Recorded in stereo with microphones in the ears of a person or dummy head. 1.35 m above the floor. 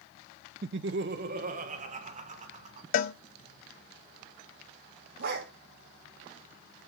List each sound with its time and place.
0.6 s laughter: 50° right (ahead or behind), 0.6 m; by 2.8 s 30° right (ahead or behind), 3 m
2.9 s a cowbell: 55° left (ahead or behind), 0.8 m
5.2 s a dog barking: 55° right (ahead or behind), 2.5 m